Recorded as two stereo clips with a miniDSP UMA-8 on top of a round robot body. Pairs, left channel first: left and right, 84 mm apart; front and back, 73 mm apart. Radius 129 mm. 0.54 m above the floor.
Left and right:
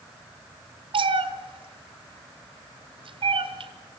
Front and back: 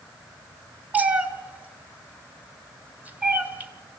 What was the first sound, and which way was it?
A cat meowing, 110° right.